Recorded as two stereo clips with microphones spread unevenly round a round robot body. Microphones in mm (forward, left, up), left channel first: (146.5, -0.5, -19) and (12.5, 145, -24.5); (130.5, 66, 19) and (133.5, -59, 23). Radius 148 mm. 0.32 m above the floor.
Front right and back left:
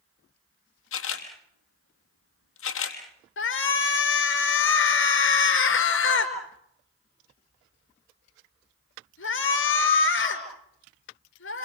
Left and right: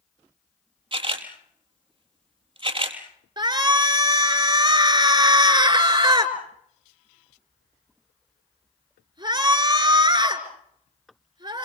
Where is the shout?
35° right, 4.5 m.